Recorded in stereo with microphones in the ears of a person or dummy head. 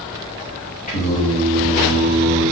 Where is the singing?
45° left (ahead or behind), 1.1 m.